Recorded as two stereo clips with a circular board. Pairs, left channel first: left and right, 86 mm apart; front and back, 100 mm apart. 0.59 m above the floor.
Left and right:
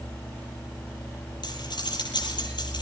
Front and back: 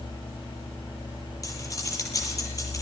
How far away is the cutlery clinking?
About 8.5 m.